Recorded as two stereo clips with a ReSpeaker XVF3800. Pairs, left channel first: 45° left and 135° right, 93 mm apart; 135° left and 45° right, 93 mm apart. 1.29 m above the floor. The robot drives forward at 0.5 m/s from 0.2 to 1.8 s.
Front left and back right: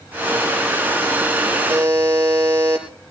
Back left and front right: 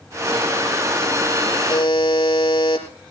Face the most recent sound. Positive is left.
turn(degrees=165)